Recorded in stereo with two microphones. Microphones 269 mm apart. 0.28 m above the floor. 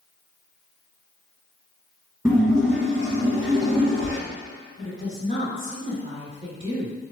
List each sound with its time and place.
2.2 s a splash: 10° right (ahead or behind), 0.9 m
4.8 s a woman speaking: 30° left (ahead or behind), 1.3 m